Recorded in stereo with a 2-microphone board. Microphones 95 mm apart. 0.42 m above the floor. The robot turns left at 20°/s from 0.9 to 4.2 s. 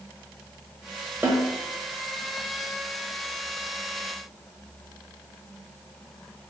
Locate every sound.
1.2 s a snare drum: 20° right (ahead or behind), 0.7 m; by 1.5 s 25° right (ahead or behind), 0.7 m